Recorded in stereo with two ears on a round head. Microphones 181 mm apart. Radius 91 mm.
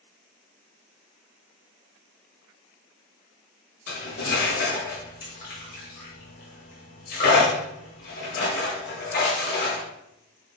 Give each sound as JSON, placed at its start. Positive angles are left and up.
{"t": 3.9, "sound": "cutlery clinking", "side_deg": 50, "distance_m": 1.1}